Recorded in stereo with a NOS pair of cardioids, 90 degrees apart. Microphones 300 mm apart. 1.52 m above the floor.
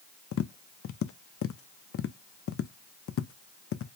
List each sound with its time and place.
0.3 s tapping: 45° left, 0.6 m